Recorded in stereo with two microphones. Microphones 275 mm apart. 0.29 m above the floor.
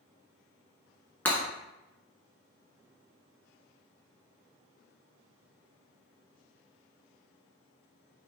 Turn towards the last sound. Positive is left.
turn(degrees=5)  # may be behind; listen again after turning